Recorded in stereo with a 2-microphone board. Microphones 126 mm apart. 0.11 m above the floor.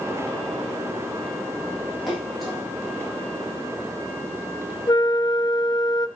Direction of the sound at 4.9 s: 35° left (ahead or behind).